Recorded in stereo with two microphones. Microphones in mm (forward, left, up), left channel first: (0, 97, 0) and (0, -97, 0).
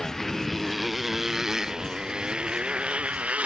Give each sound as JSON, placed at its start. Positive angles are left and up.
{"t": 0.0, "sound": "a motorcycle", "side_deg": 0}